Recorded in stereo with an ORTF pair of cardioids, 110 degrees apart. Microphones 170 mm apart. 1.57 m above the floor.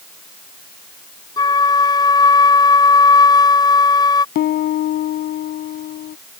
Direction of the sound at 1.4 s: 25° left.